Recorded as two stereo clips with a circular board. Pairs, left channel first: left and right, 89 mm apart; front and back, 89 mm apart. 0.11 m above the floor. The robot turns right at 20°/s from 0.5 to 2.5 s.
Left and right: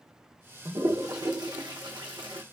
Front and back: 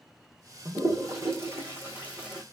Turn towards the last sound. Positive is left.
turn(degrees=-100)